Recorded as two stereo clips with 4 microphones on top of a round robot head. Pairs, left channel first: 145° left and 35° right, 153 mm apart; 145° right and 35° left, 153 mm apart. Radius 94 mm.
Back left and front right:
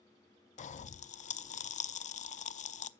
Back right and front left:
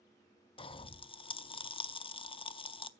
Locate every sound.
0.6 s a pop: 170° left, 0.6 m